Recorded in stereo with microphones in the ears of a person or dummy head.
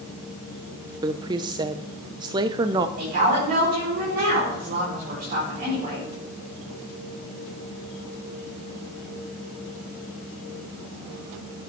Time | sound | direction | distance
1.0 | a woman speaking | 20° right (ahead or behind) | 0.7 m
3.0 | a woman speaking | 50° right (ahead or behind) | 4 m